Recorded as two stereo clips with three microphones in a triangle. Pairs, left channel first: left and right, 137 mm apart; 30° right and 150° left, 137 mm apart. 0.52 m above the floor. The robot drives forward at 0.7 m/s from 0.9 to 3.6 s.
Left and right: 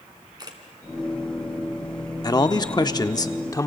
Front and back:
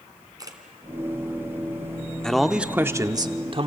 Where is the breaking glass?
No breaking glass in this recording.